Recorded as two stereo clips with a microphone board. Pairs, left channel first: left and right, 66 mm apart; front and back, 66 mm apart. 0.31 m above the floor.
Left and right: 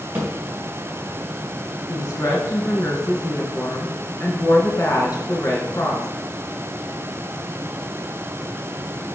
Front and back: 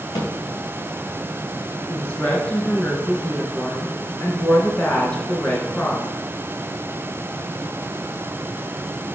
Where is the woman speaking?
70° left, 3 m.